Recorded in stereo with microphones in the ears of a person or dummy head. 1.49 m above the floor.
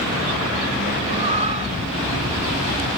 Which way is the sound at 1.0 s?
30° right (ahead or behind).